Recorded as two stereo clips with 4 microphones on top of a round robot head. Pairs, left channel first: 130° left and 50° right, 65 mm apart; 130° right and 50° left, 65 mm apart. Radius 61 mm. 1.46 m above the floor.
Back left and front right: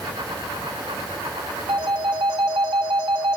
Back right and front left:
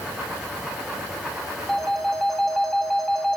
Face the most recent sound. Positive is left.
turn(degrees=-45)